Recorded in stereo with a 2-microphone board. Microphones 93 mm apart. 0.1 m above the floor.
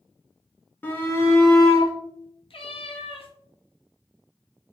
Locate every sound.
0.8 s a shout: 20° left (ahead or behind), 1.1 m; by 1.9 s 35° left (ahead or behind), 1.5 m
2.5 s a cat meowing: 65° left (ahead or behind), 0.7 m